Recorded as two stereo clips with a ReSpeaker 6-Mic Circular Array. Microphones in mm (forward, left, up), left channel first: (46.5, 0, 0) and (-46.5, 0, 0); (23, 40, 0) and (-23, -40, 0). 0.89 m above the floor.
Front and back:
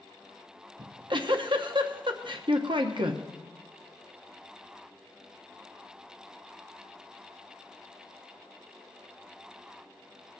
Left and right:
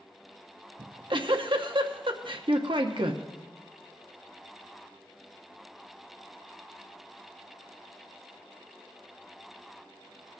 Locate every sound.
0.8 s a giggle: 150° right, 0.8 m